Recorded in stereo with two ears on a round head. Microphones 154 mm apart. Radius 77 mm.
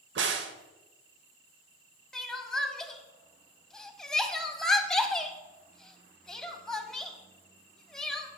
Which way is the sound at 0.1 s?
75° right (ahead or behind).